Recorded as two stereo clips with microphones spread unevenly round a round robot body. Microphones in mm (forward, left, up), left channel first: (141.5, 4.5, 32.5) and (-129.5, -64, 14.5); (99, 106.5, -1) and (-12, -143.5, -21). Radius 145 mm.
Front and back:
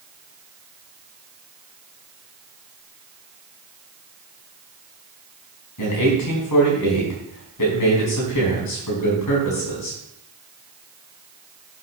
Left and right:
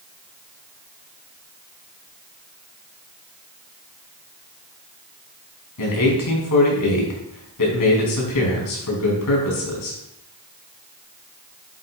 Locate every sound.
5.8 s a man speaking: 45° left, 5 m